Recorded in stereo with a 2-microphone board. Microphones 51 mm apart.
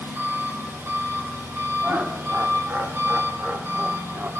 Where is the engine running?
50° right (ahead or behind), 3.5 m.